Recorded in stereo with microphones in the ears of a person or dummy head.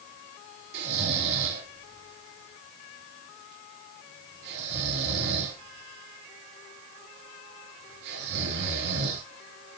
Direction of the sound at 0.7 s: 60° right (ahead or behind).